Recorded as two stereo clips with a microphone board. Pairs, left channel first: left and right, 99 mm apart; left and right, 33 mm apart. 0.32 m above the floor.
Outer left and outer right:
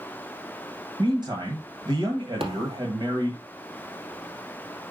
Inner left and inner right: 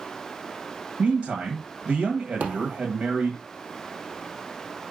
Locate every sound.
1.0 s a man speaking: 50° right (ahead or behind), 1.6 m
2.4 s a thud: 70° right (ahead or behind), 2.5 m